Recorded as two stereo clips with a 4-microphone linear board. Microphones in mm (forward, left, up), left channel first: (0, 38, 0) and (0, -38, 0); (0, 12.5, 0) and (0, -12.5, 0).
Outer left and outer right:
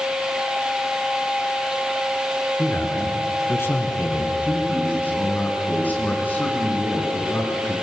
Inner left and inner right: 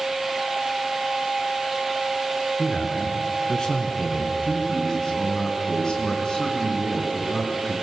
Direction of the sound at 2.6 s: 30° left (ahead or behind).